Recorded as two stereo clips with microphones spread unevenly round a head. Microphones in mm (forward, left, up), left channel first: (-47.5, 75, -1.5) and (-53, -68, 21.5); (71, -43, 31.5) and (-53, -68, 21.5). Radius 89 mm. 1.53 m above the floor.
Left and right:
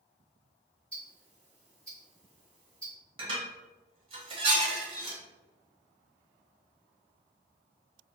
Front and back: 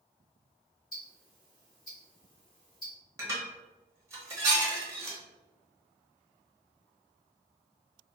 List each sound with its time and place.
0.9 s ticking: 5° right, 1.5 m
3.2 s dishes clattering: 105° right, 0.8 m